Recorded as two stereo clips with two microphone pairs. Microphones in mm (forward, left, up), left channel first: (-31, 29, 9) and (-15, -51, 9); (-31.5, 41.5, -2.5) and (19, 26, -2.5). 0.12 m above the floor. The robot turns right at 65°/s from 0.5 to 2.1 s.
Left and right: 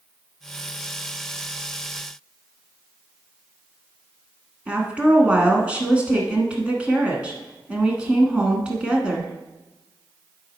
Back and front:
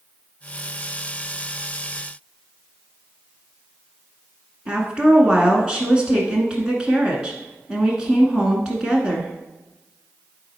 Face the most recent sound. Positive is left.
turn(degrees=-40)